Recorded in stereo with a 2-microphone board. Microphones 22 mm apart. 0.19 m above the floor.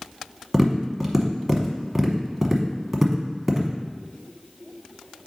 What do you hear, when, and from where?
0.5 s tapping: 15° right (ahead or behind), 1.1 m